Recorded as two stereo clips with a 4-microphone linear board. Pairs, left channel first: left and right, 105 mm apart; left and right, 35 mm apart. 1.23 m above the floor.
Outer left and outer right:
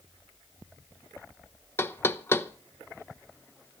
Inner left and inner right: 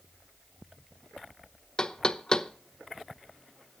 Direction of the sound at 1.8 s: 25° left (ahead or behind).